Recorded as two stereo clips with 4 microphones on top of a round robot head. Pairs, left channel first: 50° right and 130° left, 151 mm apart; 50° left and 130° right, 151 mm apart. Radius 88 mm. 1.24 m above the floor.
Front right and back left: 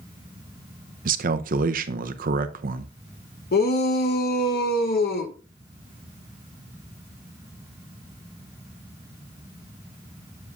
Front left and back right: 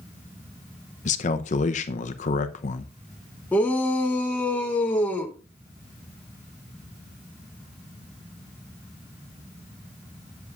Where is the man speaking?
95° left, 0.6 m.